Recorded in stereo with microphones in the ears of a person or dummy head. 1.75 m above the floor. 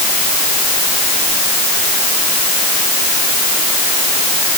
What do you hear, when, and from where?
Only background noise.